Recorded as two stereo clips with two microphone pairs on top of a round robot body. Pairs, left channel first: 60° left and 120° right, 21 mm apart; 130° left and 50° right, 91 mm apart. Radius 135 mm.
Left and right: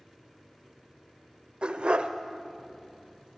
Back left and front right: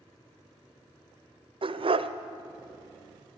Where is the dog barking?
75° right, 1.1 m.